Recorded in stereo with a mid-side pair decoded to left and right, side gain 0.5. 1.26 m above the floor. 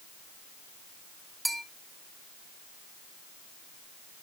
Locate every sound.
1.4 s a bell: 5° right, 2 m